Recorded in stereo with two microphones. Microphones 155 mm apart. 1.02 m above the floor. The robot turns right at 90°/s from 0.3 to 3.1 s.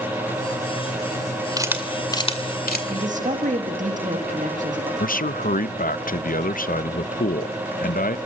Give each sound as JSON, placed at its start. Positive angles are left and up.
{"t": 1.6, "sound": "a camera shutter", "side_deg": -25, "distance_m": 2.0}
{"t": 2.9, "sound": "a man speaking", "side_deg": -35, "distance_m": 2.0}
{"t": 5.0, "sound": "a man speaking", "side_deg": 65, "distance_m": 0.6}